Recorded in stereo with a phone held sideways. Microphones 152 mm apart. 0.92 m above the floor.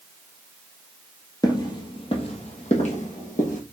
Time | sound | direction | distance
1.4 | footsteps | 25° left (ahead or behind) | 1.2 m